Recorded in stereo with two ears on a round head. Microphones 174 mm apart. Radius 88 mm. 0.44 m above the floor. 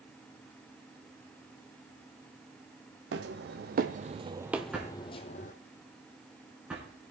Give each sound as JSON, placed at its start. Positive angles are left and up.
{"t": 3.1, "sound": "footsteps", "side_deg": -65, "distance_m": 1.2}
{"t": 4.7, "sound": "a drawer", "side_deg": -5, "distance_m": 3.0}